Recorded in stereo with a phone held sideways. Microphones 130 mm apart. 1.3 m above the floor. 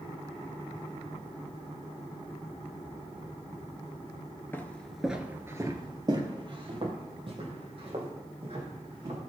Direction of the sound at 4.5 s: 15° left (ahead or behind).